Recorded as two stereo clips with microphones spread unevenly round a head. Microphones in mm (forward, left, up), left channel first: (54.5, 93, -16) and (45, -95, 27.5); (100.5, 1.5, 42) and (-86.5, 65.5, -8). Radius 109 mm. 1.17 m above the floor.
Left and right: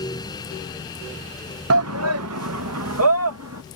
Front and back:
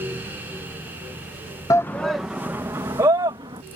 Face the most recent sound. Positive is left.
turn(degrees=-125)